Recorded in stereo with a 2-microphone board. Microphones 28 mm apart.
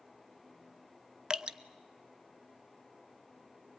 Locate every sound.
1.3 s dripping: 30° right (ahead or behind), 0.6 m